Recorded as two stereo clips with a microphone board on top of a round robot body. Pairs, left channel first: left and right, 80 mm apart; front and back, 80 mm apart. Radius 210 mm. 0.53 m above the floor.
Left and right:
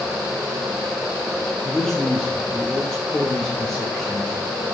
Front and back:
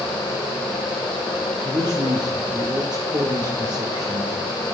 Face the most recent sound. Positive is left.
turn(degrees=170)